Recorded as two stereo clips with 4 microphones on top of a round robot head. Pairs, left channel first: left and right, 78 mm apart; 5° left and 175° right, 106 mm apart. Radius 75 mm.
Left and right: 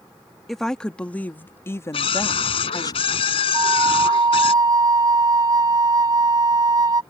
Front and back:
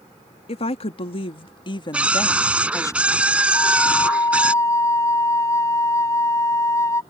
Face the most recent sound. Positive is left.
turn(degrees=-60)